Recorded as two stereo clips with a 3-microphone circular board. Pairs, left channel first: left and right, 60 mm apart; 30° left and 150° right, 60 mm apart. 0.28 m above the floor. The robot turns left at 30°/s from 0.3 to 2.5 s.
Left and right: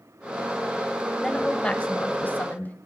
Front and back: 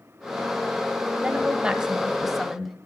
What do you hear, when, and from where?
1.2 s a woman speaking: 160° left, 1.3 m; by 2.8 s 120° left, 1.3 m